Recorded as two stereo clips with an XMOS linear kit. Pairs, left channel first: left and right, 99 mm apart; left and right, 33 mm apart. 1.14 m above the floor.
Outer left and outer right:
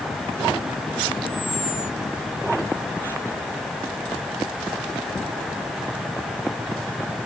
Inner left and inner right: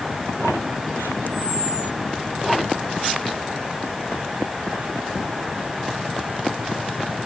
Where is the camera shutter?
60° left (ahead or behind).